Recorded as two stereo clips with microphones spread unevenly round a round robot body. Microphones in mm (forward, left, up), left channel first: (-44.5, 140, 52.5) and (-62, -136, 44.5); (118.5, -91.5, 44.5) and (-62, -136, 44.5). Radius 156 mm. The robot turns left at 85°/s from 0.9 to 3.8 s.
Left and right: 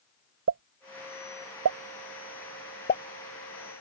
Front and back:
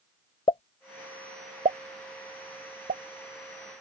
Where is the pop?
50° right; by 3.0 s 130° left.